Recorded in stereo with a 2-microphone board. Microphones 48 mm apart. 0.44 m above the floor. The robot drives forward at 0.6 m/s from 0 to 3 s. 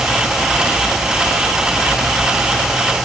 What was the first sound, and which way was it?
Only background noise.